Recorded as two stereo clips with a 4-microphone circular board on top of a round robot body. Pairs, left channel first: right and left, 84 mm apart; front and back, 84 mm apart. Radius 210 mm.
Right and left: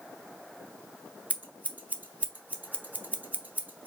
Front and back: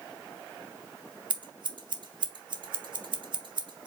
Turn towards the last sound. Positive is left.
turn(degrees=160)